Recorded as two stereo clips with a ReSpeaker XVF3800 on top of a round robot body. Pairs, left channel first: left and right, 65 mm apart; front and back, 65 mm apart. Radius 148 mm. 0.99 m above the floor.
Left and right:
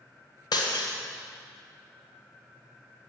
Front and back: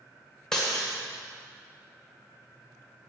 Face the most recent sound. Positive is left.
turn(degrees=80)